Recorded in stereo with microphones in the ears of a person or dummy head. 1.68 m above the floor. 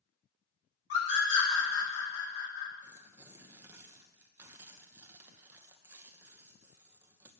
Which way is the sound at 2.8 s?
10° right (ahead or behind).